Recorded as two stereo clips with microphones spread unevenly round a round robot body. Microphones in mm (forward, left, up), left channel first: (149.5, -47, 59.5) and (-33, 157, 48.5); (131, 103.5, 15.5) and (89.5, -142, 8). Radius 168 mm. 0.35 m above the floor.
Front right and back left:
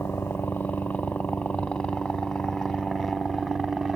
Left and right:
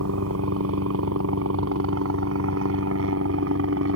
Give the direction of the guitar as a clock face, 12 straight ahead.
No guitar in this recording.